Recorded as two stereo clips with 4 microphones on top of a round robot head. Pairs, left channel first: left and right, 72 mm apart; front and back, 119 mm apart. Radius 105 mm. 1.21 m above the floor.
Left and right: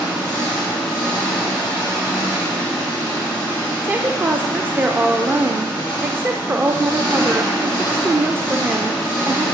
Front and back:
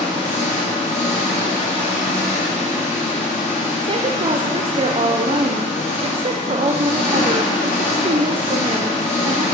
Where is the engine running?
10° left, 2.5 m.